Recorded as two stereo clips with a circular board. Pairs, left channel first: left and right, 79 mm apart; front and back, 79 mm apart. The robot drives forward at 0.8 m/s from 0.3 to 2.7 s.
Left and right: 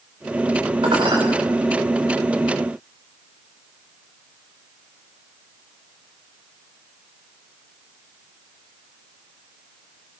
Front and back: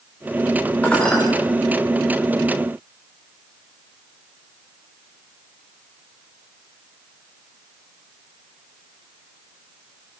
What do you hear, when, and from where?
0.8 s dishes clattering: 75° right, 7.5 m